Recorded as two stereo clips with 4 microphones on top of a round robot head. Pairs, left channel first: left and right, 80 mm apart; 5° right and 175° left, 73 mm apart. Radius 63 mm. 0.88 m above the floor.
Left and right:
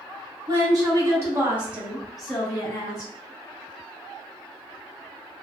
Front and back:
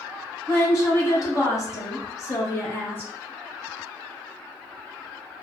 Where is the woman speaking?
55° right, 1.3 m; by 3.1 s 50° left, 0.9 m.